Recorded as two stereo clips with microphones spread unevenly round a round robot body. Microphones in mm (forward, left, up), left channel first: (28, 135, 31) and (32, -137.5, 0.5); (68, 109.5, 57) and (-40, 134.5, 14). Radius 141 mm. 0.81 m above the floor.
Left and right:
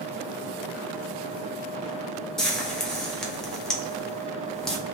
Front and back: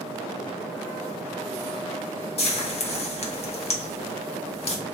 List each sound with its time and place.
2.4 s frying: 5° right, 1.0 m